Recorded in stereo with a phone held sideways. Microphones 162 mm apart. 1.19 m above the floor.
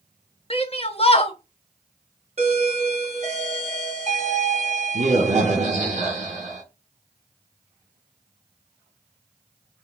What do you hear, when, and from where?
0.5 s a shout: 35° left (ahead or behind), 0.7 m
2.4 s a doorbell: 45° right (ahead or behind), 0.9 m